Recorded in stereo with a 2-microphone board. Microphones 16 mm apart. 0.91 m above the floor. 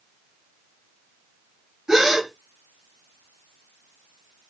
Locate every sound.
1.9 s a gasp: 30° right (ahead or behind), 1.5 m